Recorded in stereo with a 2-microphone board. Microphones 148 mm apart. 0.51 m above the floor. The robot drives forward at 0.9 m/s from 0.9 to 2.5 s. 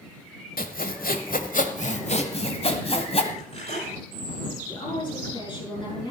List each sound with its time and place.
0.6 s sawing: 75° left (ahead or behind), 1.3 m; by 3.2 s 40° left (ahead or behind), 1.9 m
3.3 s cutlery clinking: 50° left (ahead or behind), 9 m
4.7 s a woman speaking: 30° left (ahead or behind), 7.5 m